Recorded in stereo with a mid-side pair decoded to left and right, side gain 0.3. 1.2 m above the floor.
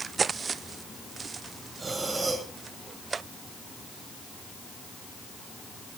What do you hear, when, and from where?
1.8 s breathing: 45° right, 7.5 m